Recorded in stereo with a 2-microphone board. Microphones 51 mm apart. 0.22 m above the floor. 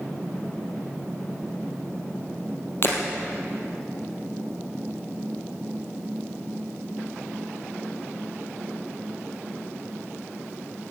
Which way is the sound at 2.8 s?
50° left (ahead or behind).